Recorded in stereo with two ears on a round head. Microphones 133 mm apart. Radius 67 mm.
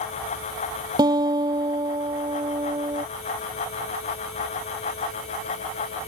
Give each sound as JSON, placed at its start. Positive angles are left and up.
{"t": 1.0, "sound": "a guitar", "side_deg": -30}